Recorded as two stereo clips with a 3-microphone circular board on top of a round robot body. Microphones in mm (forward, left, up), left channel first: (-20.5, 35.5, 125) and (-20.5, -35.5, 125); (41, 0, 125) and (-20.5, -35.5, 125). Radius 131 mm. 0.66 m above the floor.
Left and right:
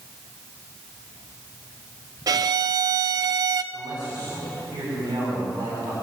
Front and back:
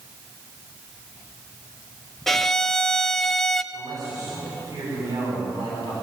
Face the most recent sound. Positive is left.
turn(degrees=-115)